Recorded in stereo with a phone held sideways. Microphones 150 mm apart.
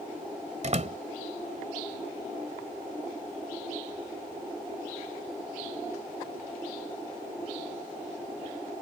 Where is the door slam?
50° right (ahead or behind).